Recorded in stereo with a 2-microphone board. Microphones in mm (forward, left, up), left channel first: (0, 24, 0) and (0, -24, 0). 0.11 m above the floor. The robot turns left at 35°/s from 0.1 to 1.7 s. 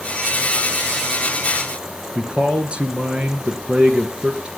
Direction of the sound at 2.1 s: 25° right (ahead or behind).